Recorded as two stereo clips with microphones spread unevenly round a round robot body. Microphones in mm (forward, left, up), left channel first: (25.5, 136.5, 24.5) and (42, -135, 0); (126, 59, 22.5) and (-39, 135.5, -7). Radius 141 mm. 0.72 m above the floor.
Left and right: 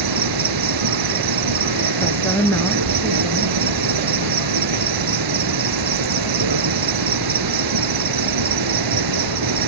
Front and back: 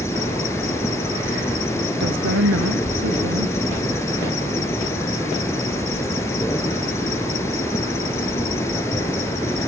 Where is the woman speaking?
175° left.